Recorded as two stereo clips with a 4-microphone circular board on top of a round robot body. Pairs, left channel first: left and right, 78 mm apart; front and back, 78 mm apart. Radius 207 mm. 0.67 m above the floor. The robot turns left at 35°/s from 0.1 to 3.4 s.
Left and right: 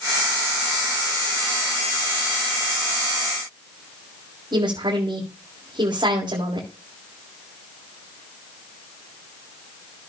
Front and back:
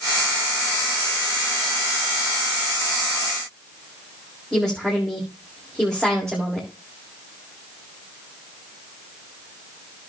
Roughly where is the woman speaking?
Right.